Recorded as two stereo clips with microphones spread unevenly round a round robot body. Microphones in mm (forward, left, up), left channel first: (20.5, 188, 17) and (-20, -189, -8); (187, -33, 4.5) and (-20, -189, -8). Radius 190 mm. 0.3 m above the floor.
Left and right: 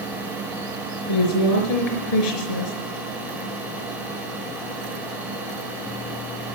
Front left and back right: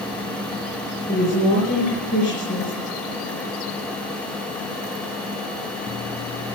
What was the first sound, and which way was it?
A woman speaking, 100° left.